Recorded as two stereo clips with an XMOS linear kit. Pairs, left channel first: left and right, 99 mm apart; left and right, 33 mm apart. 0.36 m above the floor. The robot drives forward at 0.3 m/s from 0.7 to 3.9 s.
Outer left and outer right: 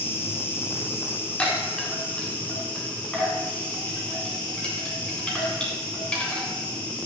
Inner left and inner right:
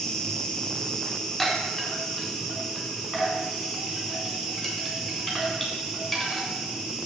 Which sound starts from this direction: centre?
A chime, at 1.4 s.